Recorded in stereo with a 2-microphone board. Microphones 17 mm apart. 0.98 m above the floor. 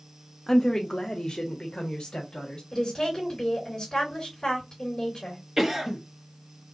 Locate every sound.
0.5 s a woman speaking: 30° left (ahead or behind), 0.5 m; by 2.6 s 70° left (ahead or behind), 1.5 m
2.7 s a woman speaking: 30° left (ahead or behind), 3.5 m
5.6 s a cough: 20° right (ahead or behind), 1.5 m